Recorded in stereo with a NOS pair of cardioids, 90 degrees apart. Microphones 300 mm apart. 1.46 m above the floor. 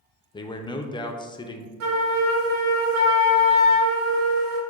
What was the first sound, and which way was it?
A man speaking, 15° left.